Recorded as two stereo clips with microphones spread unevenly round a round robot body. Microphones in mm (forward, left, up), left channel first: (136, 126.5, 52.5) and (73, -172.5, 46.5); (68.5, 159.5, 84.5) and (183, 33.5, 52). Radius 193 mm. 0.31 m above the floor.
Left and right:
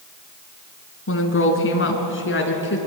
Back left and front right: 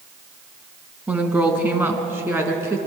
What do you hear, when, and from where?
1.1 s a woman speaking: 35° left, 4 m; by 2.8 s 25° left, 5 m